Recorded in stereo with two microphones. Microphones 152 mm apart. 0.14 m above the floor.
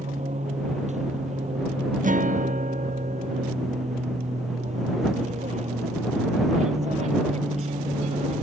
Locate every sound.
0.0 s an aircraft: 50° right (ahead or behind)
2.0 s a guitar: 60° right (ahead or behind)